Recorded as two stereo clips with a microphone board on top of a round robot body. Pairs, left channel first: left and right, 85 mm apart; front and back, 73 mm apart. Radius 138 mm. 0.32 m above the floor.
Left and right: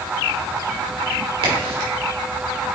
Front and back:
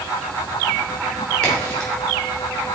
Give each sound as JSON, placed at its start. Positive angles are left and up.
{"t": 1.4, "sound": "a crack", "azimuth_deg": -80, "distance_m": 3.5}